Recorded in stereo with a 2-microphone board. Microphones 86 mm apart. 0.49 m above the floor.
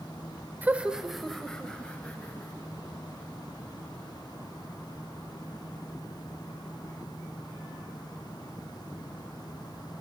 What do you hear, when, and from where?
0.6 s laughter: 20° right (ahead or behind), 1.6 m; by 2.7 s 20° left (ahead or behind), 4 m